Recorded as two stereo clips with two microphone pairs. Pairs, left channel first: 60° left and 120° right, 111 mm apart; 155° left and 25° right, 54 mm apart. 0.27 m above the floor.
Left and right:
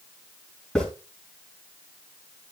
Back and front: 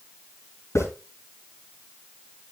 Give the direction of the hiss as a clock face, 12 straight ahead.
7 o'clock.